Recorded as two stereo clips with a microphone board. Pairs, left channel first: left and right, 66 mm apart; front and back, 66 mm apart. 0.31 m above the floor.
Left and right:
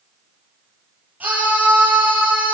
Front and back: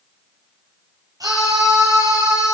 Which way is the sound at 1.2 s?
155° right.